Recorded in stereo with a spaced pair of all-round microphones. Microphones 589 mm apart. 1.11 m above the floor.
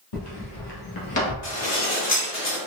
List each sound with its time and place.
0.1 s footsteps: 55° left (ahead or behind), 1.9 m; by 1.3 s 25° left (ahead or behind), 1.1 m
1.4 s dishes clattering: 65° left (ahead or behind), 1.2 m